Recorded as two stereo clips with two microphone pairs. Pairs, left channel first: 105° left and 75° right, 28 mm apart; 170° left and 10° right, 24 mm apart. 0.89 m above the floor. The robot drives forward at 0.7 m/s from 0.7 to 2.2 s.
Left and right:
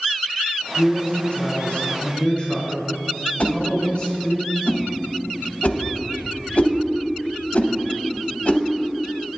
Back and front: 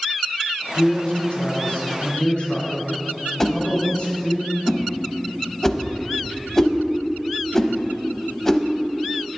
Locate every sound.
0.7 s a man speaking: 145° left, 2 m; by 4.4 s 160° left, 3 m
3.4 s a whoosh: 105° left, 0.5 m